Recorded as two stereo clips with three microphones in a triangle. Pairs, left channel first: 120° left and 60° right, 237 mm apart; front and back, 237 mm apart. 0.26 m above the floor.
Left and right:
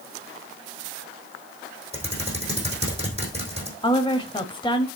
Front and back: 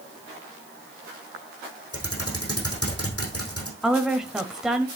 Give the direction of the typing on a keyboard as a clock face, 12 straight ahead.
12 o'clock.